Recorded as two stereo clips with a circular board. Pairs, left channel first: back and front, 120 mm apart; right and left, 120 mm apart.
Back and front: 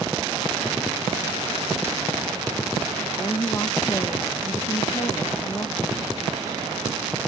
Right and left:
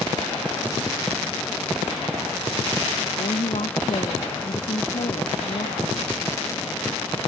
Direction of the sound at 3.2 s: 115° right.